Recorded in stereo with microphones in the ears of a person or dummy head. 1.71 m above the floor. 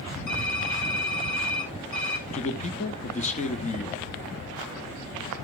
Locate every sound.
0.3 s typing on a keyboard: 75° left (ahead or behind), 5.5 m
2.3 s a man speaking: 35° left (ahead or behind), 0.9 m